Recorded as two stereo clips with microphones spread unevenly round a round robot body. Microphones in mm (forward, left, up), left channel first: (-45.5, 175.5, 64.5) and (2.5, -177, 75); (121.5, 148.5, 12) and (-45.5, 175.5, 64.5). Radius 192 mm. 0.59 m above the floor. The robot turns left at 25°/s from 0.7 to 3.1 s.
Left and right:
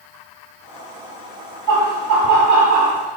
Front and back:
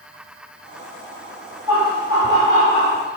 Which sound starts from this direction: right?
Laughter, at 1.7 s.